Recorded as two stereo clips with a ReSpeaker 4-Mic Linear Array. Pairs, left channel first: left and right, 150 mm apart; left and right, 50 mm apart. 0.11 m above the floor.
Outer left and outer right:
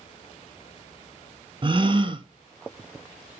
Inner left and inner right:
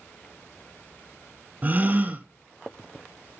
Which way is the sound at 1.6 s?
35° right (ahead or behind).